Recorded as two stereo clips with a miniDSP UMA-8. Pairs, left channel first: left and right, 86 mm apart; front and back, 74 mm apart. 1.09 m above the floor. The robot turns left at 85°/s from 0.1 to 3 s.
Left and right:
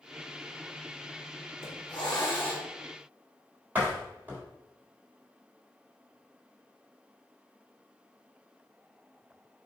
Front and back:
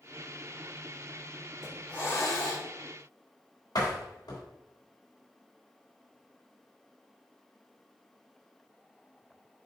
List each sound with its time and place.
1.6 s a hiss: 100° left, 2.5 m; by 2.7 s 10° left, 2.5 m
3.8 s a door slam: 20° right, 3 m